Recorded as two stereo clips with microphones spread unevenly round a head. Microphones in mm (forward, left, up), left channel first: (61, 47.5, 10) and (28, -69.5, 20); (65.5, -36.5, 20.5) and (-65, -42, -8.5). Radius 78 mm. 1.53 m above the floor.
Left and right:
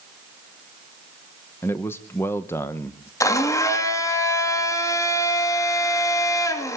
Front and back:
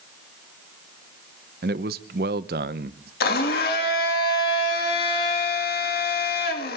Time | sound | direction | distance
1.6 | a man speaking | 150° left | 0.9 m
3.2 | a blender | 10° left | 3 m